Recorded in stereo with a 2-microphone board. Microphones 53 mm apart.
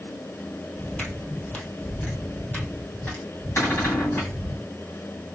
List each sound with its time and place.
0.8 s footsteps: 15° left (ahead or behind), 1.5 m; by 4.6 s 40° left (ahead or behind), 3 m
3.6 s a cupboard door: 60° left (ahead or behind), 2.5 m